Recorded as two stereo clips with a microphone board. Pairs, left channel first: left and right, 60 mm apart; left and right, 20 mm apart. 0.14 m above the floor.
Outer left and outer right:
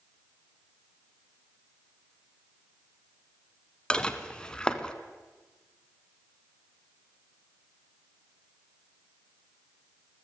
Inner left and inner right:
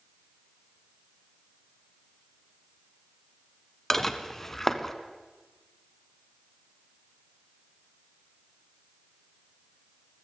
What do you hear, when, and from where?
3.9 s dishes clattering: 15° left (ahead or behind), 0.9 m